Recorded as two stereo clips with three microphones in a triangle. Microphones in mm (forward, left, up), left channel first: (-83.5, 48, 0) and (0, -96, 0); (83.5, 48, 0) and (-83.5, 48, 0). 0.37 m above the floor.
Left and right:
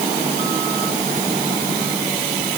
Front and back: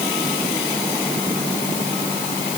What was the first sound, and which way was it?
Only background noise.